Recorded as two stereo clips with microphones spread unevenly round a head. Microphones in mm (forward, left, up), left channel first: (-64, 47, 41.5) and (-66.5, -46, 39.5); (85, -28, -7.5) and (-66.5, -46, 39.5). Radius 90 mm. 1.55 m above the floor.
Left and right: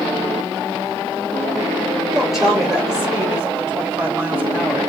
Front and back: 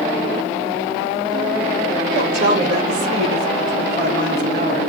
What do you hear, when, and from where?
2.1 s a woman speaking: straight behind, 3.5 m; by 4.9 s 160° right, 6 m